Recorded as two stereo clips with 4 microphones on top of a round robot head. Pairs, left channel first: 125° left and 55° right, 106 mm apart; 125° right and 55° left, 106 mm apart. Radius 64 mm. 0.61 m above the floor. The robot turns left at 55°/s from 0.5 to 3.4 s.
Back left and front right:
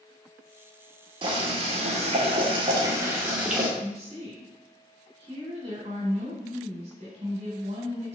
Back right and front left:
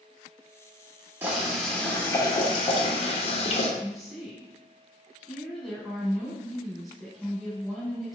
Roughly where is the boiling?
Ahead.